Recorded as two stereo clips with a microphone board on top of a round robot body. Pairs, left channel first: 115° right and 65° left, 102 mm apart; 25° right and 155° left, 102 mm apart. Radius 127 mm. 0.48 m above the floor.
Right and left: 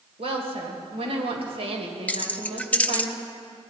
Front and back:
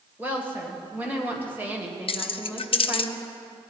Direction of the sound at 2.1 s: 35° right.